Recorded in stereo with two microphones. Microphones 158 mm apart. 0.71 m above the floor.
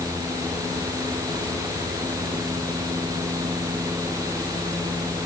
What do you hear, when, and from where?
Only background noise.